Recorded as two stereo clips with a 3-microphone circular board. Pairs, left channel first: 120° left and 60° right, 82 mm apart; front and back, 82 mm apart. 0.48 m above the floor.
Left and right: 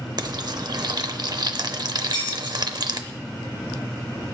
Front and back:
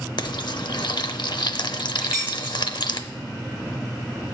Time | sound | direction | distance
0.2 | frying | 25° right | 0.6 m
2.0 | keys jangling | 100° left | 5 m